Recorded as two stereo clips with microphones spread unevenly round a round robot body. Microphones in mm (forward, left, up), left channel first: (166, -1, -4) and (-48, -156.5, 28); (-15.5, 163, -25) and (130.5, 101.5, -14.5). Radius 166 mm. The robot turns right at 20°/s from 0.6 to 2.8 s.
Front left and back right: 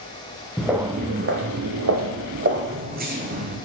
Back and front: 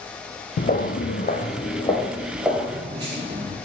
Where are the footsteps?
130° left, 0.7 m; by 3.6 s 85° right, 1.4 m.